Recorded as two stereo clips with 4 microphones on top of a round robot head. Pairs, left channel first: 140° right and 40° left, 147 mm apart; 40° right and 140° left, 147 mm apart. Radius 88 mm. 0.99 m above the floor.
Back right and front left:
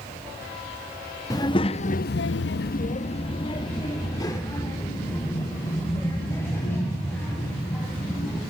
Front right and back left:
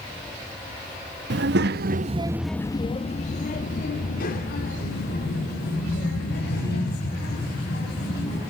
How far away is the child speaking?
About 1.0 m.